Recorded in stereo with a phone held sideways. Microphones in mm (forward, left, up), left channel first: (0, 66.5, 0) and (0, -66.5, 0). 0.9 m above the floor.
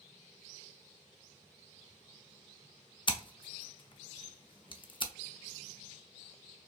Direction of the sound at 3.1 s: 40° left (ahead or behind).